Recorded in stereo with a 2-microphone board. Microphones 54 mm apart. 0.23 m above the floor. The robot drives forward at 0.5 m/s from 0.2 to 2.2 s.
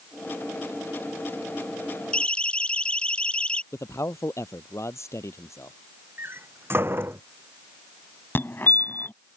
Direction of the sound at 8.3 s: 40° left (ahead or behind).